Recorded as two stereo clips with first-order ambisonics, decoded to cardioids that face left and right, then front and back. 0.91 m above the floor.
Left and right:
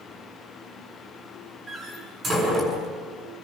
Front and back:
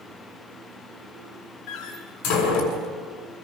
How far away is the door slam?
About 6.5 m.